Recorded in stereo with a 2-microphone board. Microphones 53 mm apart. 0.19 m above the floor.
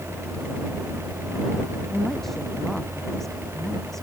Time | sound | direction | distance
1.9 | a woman speaking | 5° left (ahead or behind) | ?